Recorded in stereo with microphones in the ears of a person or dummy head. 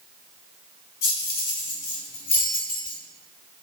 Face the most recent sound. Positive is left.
turn(degrees=30)  # may be behind; listen again after turning